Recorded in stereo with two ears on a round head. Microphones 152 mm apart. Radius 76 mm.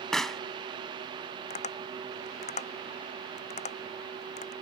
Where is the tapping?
45° left (ahead or behind).